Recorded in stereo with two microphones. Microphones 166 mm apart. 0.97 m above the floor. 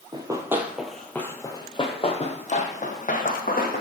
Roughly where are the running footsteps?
Right.